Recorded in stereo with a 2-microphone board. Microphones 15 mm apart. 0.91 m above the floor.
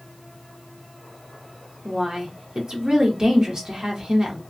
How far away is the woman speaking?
About 1.2 m.